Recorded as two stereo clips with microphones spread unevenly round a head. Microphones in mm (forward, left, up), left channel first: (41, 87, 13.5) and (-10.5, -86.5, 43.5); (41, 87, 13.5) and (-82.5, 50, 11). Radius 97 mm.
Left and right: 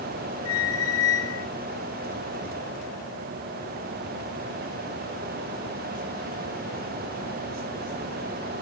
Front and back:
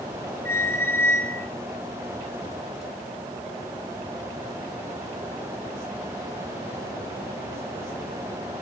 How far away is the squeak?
About 3 m.